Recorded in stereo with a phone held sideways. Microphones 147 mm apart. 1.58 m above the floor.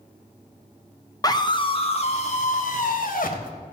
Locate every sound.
1.2 s a scream: 25° left (ahead or behind), 1.1 m; by 3.5 s 70° left (ahead or behind), 1.8 m